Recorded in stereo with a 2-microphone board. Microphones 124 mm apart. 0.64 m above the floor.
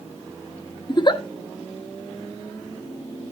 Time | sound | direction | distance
0.9 | a giggle | 35° left (ahead or behind) | 0.7 m